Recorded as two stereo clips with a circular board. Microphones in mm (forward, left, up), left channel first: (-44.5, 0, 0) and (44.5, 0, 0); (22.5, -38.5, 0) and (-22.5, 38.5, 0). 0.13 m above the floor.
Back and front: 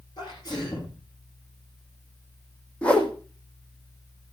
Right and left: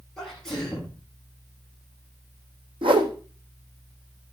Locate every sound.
0.2 s a sneeze: 145° right, 8 m
2.8 s a whoosh: 100° left, 2.5 m